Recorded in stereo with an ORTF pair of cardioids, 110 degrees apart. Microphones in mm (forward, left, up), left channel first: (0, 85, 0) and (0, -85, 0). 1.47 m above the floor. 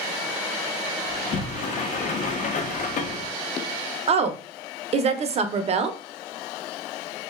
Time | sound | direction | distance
1.1 | a sliding door | 45° left | 0.6 m
4.1 | a woman speaking | 40° right | 0.6 m